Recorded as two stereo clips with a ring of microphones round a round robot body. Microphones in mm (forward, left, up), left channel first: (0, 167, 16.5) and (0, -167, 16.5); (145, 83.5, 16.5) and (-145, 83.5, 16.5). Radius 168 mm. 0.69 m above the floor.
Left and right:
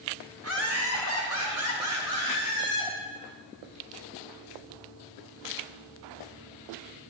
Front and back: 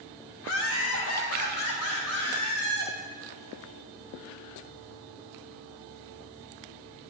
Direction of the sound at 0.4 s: 40° right.